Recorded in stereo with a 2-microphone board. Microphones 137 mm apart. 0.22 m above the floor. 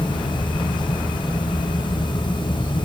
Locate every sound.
Only background noise.